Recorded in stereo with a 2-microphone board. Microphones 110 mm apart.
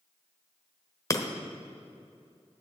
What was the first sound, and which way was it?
Breaking glass, 30° left (ahead or behind).